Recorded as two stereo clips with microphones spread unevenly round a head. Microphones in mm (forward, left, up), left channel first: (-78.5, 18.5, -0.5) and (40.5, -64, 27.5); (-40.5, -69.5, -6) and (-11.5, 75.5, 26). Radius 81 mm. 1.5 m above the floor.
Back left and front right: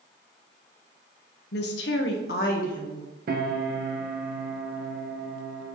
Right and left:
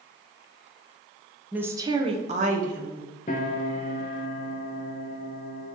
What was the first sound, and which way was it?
A woman speaking, 155° left.